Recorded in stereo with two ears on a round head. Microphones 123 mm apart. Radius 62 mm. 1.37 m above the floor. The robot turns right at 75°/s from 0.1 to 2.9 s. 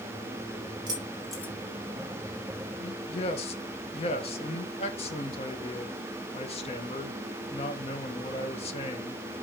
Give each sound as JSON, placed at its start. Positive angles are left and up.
{"t": 0.9, "sound": "keys jangling", "side_deg": -35, "distance_m": 3.0}
{"t": 2.8, "sound": "a man speaking", "side_deg": 55, "distance_m": 1.7}